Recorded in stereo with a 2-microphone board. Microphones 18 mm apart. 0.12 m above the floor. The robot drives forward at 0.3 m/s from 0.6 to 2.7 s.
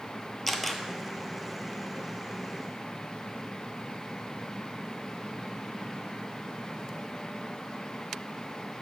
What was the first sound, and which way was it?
A camera shutter, 5° left (ahead or behind).